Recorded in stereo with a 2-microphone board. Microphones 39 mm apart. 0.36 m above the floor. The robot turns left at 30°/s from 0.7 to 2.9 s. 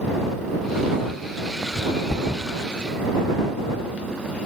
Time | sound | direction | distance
2.1 | a thud | 30° left (ahead or behind) | ?